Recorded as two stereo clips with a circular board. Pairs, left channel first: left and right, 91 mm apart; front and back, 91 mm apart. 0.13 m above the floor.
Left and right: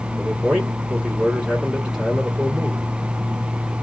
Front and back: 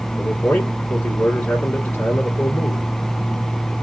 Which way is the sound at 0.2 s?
25° right.